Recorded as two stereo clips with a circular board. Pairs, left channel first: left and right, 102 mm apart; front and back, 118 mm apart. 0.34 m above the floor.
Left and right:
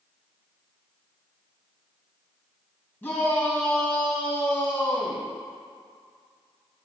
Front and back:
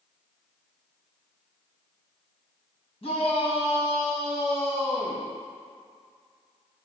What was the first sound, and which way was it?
A shout, 25° left.